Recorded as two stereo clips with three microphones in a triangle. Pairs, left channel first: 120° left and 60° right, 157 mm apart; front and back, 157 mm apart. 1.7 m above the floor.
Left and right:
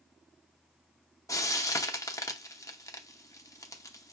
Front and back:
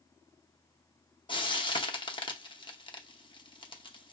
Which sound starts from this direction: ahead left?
Frying, at 1.3 s.